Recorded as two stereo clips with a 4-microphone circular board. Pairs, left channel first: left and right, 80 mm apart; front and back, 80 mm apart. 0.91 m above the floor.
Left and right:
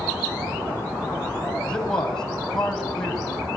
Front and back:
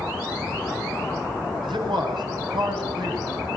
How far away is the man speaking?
About 7 m.